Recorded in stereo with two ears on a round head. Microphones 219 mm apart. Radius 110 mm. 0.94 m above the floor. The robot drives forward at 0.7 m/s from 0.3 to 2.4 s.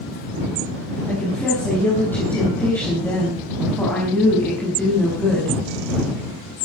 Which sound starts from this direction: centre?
A woman speaking, at 1.1 s.